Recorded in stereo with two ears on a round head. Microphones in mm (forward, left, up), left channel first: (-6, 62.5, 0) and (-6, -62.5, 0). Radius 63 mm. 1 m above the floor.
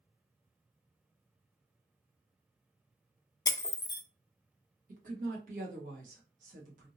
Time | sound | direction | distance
3.5 | breaking glass | 25° left (ahead or behind) | 0.6 m
4.9 | a woman speaking | 60° right (ahead or behind) | 1.3 m